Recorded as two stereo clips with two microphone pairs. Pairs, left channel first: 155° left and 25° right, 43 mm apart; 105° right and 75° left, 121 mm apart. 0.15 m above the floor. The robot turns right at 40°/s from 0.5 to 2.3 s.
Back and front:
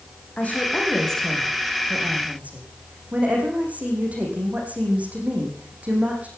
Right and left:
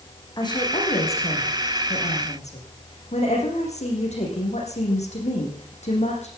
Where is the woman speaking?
155° right, 7.5 m; by 6.3 s 80° right, 7.5 m.